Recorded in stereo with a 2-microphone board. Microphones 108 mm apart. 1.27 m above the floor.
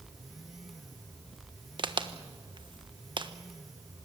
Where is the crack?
45° right (ahead or behind), 1.2 m.